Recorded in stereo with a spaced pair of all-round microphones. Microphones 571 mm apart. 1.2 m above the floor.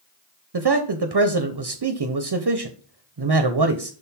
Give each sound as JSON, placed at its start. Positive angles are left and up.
{"t": 0.5, "sound": "a man speaking", "side_deg": -45, "distance_m": 0.6}